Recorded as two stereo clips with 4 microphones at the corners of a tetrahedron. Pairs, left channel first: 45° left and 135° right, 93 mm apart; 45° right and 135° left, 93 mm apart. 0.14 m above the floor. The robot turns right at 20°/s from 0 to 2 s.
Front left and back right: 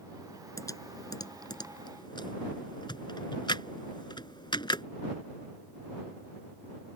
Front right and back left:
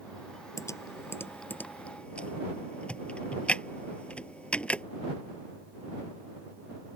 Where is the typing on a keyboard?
Straight ahead; by 4.8 s 30° left.